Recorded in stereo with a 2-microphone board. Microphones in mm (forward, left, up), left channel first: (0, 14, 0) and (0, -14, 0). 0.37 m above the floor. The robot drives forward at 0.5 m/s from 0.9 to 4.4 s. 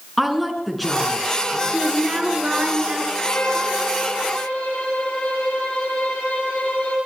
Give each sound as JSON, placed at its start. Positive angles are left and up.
{"t": 0.2, "sound": "a woman speaking", "side_deg": 0, "distance_m": 4.5}
{"t": 1.7, "sound": "a woman speaking", "side_deg": -35, "distance_m": 5.0}
{"t": 3.2, "sound": "a violin", "side_deg": 75, "distance_m": 9.5}